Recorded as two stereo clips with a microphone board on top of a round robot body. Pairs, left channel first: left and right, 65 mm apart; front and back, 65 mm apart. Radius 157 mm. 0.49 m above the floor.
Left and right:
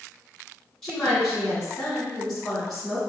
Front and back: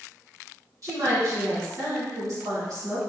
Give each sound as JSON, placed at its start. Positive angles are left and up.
{"t": 0.8, "sound": "a woman speaking", "azimuth_deg": 170, "distance_m": 1.9}